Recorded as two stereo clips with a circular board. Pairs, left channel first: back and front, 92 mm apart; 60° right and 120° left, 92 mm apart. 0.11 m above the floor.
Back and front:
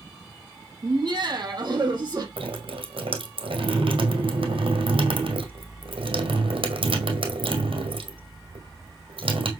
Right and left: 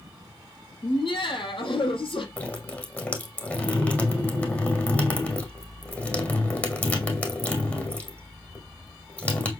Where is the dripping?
15° left, 2 m.